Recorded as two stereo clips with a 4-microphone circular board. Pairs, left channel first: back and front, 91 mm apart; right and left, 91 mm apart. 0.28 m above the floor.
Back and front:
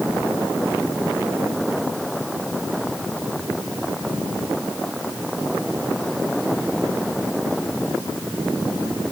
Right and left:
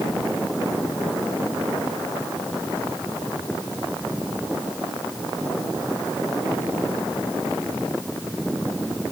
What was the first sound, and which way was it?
Only background noise.